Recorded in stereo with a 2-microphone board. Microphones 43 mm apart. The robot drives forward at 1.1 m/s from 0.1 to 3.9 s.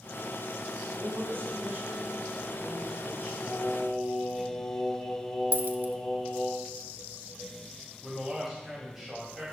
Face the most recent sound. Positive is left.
turn(degrees=-5)  # may be behind; listen again after turning